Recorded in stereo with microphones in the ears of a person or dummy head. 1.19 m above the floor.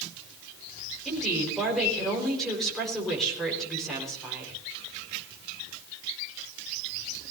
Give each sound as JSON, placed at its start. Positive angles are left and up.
{"t": 1.1, "sound": "a woman speaking", "side_deg": 0, "distance_m": 4.5}